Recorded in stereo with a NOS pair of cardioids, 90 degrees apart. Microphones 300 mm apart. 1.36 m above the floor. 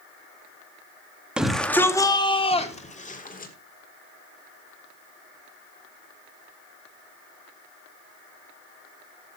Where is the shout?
5° right, 2 m; by 3.5 s 30° left, 3.5 m.